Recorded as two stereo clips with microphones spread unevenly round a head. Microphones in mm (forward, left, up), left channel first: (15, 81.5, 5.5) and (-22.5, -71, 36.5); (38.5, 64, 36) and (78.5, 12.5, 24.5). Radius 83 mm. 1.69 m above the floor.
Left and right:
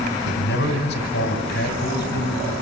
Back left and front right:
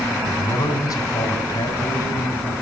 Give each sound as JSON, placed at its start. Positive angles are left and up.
{"t": 0.2, "sound": "a man speaking", "azimuth_deg": 105, "distance_m": 5.0}